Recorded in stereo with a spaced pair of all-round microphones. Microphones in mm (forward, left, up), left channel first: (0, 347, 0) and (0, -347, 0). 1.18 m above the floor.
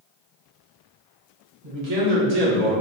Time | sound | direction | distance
1.6 | a man speaking | 55° right (ahead or behind) | 1.6 m